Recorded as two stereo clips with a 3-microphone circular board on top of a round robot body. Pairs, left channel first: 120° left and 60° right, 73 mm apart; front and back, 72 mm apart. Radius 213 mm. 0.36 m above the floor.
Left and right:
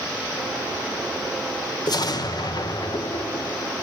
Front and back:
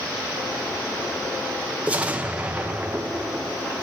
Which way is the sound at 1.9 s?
110° left.